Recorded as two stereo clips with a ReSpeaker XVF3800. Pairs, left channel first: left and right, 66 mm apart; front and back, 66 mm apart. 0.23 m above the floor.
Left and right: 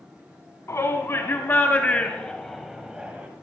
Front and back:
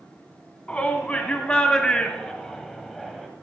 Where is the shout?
65° left, 1.8 m; by 3.3 s 90° right, 1.2 m.